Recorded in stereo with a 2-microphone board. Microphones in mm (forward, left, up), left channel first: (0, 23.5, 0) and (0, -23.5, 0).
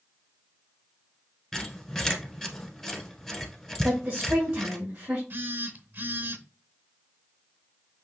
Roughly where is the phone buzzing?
Right.